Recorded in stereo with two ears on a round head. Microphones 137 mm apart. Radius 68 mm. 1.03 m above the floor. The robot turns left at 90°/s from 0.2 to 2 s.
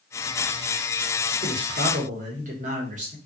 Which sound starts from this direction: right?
A man speaking, at 1.4 s.